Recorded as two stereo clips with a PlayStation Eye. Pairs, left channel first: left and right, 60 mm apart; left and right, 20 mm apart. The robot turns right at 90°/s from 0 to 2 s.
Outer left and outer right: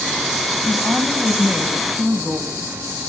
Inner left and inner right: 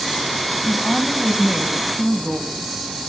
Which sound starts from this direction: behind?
A woman speaking, at 0.7 s.